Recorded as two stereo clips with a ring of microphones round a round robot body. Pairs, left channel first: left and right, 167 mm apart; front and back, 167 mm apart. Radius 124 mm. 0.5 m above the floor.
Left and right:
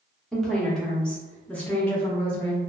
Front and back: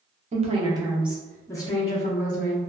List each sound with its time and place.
0.3 s a woman speaking: 175° left, 0.8 m; by 2.6 s 10° left, 1.0 m